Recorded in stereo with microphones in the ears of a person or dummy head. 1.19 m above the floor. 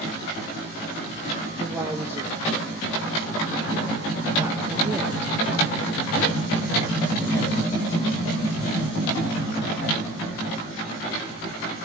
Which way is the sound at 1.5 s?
10° right (ahead or behind).